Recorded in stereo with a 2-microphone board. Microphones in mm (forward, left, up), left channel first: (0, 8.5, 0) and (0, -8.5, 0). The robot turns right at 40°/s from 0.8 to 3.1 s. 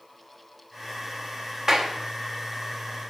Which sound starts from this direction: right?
A clap, at 1.7 s.